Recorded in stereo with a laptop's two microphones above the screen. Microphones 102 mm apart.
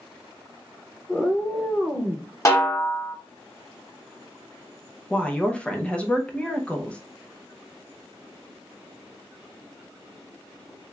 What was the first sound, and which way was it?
A cat meowing, 10° left (ahead or behind).